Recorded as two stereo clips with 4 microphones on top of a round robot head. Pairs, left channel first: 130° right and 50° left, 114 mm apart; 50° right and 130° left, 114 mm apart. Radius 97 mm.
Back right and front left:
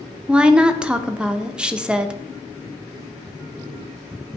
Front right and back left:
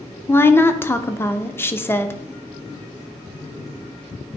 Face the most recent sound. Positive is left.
turn(degrees=-20)